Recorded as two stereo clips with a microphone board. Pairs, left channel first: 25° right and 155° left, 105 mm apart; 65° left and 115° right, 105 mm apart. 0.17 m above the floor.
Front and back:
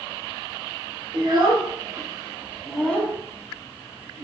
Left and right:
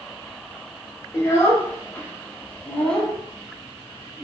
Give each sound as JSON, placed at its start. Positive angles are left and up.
{"t": 1.1, "sound": "a child speaking", "azimuth_deg": 125, "distance_m": 1.4}